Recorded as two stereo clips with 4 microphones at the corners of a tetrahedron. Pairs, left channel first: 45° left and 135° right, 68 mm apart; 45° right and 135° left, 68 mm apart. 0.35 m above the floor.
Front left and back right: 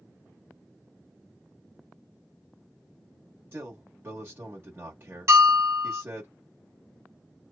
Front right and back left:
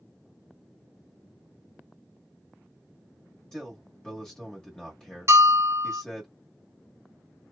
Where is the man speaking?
115° right, 1.2 m.